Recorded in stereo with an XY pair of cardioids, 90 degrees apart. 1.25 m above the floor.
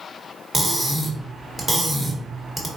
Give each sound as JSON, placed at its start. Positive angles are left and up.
{"t": 0.5, "sound": "cutlery clinking", "azimuth_deg": -25, "distance_m": 1.1}